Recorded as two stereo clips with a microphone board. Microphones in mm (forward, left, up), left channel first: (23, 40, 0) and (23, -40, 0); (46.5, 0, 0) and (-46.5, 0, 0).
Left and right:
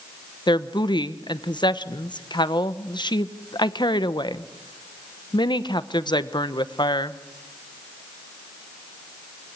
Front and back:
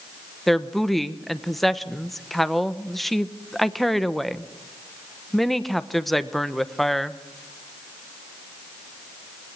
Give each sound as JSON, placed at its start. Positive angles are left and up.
{"t": 0.5, "sound": "a woman speaking", "azimuth_deg": 90, "distance_m": 1.0}